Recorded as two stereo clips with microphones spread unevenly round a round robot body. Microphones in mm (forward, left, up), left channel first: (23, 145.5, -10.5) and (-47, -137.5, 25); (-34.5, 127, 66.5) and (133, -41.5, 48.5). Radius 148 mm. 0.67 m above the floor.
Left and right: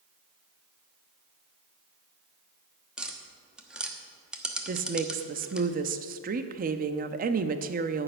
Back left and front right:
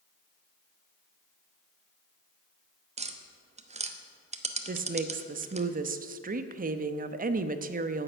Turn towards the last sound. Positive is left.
turn(degrees=-50)